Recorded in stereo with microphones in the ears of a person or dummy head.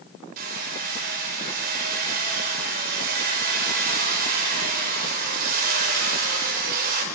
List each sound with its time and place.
0.4 s hammering: 45° right (ahead or behind), 5.5 m